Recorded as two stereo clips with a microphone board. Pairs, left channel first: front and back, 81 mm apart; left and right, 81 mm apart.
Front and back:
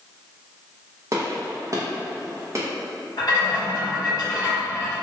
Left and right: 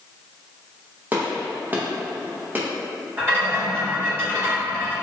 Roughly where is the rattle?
Ahead right.